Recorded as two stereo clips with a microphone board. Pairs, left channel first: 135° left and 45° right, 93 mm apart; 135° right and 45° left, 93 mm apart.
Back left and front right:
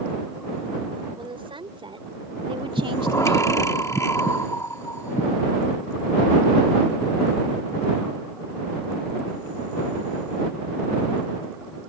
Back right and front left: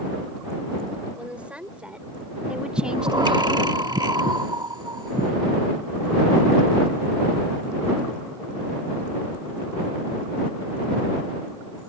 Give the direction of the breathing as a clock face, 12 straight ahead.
9 o'clock.